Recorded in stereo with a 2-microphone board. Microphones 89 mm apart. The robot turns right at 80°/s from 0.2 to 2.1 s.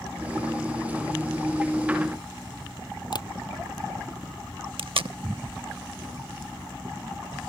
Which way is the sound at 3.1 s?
55° left (ahead or behind).